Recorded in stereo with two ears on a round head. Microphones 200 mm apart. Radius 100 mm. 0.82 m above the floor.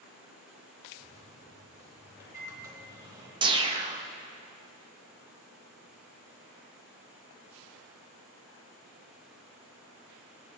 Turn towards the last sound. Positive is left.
turn(degrees=-20)  # may be behind; listen again after turning